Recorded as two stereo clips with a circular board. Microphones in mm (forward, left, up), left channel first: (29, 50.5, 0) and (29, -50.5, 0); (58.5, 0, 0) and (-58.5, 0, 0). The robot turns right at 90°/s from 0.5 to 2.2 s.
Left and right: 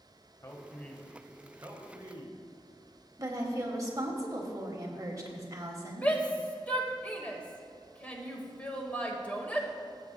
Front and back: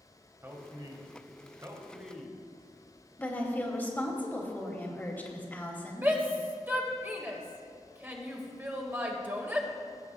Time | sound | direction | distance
0.4 | a man speaking | 125° left | 1.3 m
3.2 | a woman speaking | 65° right | 1.2 m
6.0 | a shout | 140° left | 1.3 m